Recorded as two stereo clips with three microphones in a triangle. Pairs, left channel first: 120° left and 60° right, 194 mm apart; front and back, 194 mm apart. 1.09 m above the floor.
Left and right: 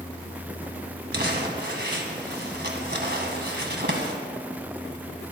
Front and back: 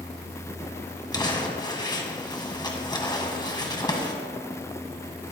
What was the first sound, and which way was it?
Crumpling, 65° right.